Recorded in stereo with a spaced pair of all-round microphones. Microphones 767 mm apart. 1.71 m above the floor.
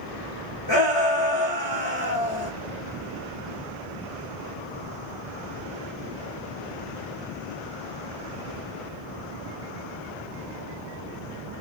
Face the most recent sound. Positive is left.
turn(degrees=35)  # may be behind; listen again after turning